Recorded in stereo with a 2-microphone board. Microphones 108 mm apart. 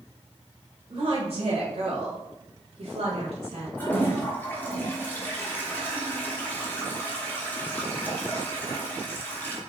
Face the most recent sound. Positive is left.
turn(degrees=15)  # may be behind; listen again after turning